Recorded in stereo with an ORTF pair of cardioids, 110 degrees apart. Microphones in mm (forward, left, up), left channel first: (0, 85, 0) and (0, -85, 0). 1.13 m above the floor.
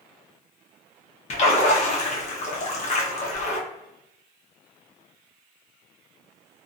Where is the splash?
40° left, 1.0 m.